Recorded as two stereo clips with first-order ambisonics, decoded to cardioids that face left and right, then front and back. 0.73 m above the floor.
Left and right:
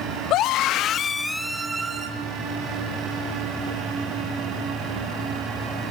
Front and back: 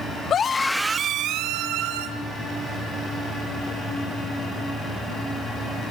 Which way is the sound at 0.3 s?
55° left.